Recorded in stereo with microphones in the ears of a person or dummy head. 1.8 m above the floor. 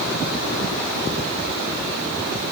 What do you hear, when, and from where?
Only background noise.